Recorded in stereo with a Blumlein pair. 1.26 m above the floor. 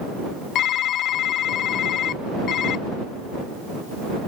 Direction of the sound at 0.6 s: 35° left.